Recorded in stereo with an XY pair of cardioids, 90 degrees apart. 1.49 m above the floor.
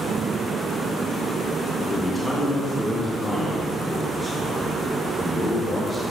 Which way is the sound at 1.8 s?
20° left.